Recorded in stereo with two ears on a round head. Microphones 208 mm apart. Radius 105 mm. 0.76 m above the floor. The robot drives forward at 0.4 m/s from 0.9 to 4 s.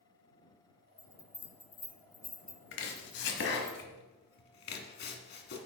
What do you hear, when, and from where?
1.0 s a bell: 10° left (ahead or behind), 0.7 m; by 3.7 s 5° left (ahead or behind), 1.6 m
2.7 s chopping: 55° left (ahead or behind), 1.5 m; by 5.6 s 45° left (ahead or behind), 1.7 m